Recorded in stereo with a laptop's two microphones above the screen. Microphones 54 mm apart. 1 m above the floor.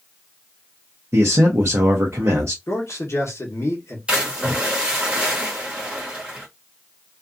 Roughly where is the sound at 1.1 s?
Right.